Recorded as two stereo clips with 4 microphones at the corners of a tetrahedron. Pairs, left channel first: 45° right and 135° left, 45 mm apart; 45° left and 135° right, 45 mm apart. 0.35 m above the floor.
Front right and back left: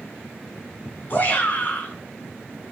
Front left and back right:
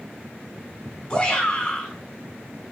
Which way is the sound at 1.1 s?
25° right.